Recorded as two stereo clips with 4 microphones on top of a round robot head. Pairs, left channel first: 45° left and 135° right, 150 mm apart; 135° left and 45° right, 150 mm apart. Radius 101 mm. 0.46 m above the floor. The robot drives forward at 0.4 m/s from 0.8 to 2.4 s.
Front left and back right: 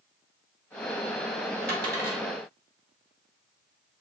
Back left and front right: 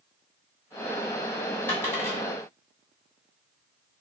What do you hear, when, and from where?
1.7 s a dropped coin: 150° right, 1.2 m; by 2.2 s 155° right, 1.4 m